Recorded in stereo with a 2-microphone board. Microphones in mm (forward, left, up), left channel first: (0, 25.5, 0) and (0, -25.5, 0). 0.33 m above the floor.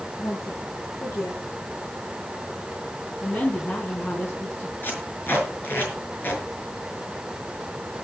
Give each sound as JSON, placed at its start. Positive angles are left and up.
{"t": 0.2, "sound": "a woman speaking", "side_deg": 60, "distance_m": 4.5}
{"t": 3.1, "sound": "a woman speaking", "side_deg": 35, "distance_m": 4.0}
{"t": 4.8, "sound": "tape being pulled", "side_deg": 40, "distance_m": 6.0}